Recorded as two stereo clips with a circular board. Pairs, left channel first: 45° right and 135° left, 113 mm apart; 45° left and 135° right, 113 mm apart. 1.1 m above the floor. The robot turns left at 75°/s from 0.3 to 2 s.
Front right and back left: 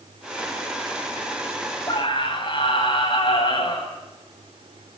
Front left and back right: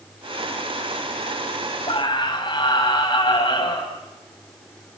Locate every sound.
1.9 s a scream: 10° left, 8.5 m; by 3.9 s straight ahead, 8.5 m